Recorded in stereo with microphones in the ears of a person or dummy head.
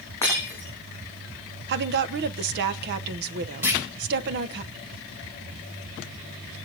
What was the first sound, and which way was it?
Breaking glass, 15° left (ahead or behind).